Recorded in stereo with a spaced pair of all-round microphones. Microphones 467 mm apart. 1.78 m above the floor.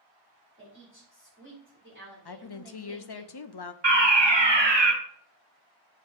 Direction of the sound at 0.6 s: 25° right (ahead or behind).